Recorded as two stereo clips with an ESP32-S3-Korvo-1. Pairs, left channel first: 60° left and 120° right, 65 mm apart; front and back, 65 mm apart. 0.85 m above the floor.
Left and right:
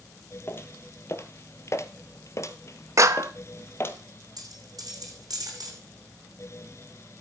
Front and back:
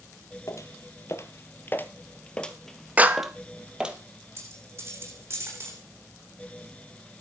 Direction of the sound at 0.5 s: 15° left.